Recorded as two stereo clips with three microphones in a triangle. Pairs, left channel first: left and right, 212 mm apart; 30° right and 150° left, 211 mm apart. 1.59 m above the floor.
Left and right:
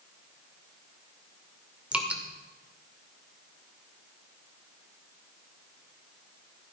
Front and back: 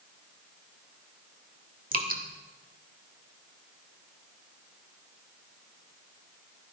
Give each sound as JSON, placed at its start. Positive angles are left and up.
{"t": 1.9, "sound": "dripping", "azimuth_deg": -175, "distance_m": 1.9}